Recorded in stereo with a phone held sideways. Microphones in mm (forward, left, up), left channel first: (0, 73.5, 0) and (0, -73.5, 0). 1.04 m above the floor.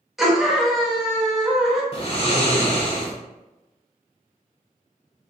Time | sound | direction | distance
0.2 | a scream | centre (ahead or behind) | 1.3 m
1.9 | snoring | 40° left (ahead or behind) | 1.0 m